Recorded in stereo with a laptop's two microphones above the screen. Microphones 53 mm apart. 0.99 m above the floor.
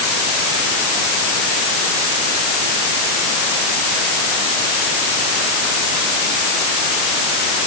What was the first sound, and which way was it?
Only background noise.